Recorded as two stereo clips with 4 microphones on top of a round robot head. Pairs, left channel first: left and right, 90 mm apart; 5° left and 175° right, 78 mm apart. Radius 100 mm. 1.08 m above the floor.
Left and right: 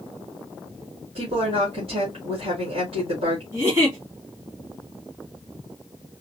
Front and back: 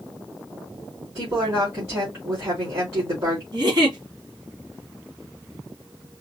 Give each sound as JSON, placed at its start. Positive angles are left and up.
{"t": 1.1, "sound": "a woman speaking", "azimuth_deg": -115, "distance_m": 2.5}
{"t": 3.5, "sound": "a giggle", "azimuth_deg": -145, "distance_m": 2.5}